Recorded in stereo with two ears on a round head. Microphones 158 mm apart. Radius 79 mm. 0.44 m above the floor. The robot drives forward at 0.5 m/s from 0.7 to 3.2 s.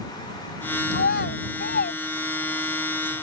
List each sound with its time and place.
0.9 s a child speaking: 65° left (ahead or behind); by 2.8 s 50° left (ahead or behind)